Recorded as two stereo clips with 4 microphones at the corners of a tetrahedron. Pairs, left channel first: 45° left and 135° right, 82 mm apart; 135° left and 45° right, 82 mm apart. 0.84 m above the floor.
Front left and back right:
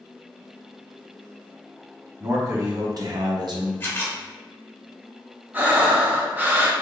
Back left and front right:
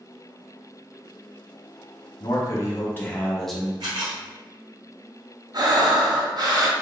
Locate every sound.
2.2 s a man speaking: 175° left, 1.3 m; by 3.7 s 125° right, 0.9 m
3.8 s a camera shutter: 20° right, 1.8 m
5.5 s breathing: 70° right, 0.7 m